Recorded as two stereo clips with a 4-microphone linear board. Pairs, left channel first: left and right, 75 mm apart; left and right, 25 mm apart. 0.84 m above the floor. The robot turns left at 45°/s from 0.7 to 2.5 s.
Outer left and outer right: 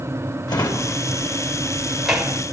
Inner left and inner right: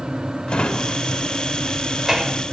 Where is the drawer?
60° left (ahead or behind), 2.5 m; by 2.4 s 20° right (ahead or behind), 2.5 m.